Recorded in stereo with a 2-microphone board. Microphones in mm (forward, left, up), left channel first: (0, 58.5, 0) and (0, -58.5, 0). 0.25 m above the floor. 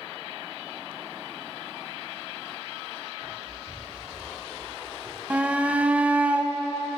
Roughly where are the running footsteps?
Right.